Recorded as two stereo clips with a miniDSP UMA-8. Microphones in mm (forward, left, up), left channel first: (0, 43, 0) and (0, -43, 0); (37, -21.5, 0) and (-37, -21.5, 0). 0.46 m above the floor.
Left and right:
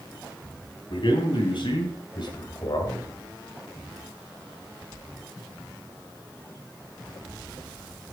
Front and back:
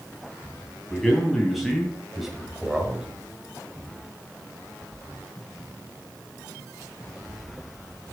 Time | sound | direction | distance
0.9 | a man speaking | 85° left | 3 m